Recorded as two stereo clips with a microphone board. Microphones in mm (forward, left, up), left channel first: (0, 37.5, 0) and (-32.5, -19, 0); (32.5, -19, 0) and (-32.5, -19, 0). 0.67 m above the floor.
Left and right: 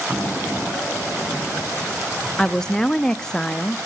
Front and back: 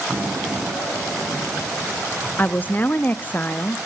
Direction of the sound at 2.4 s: 5° right.